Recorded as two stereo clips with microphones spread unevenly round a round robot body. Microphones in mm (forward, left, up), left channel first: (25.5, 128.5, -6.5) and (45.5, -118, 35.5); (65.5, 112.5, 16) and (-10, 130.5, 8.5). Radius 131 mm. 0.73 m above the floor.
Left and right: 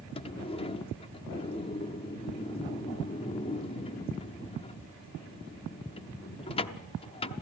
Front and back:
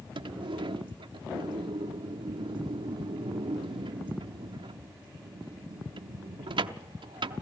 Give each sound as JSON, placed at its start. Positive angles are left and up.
{"t": 0.1, "sound": "a sliding door", "azimuth_deg": 165, "distance_m": 0.7}